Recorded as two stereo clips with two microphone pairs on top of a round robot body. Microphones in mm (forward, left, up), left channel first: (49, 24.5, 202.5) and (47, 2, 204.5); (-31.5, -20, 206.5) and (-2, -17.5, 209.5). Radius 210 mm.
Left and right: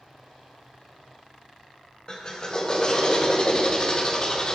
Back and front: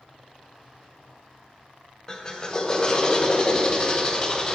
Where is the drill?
125° left, 1.6 m.